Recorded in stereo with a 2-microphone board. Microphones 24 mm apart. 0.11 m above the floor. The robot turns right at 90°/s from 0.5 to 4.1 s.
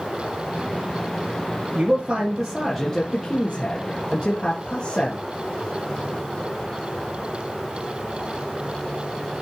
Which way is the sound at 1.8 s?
75° right.